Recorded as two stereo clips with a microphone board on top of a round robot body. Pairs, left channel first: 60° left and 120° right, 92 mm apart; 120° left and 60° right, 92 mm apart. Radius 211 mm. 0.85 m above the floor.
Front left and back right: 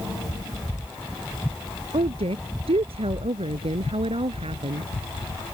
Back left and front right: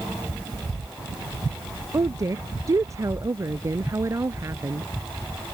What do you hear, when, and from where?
1.9 s a woman speaking: 115° right; by 4.9 s 120° right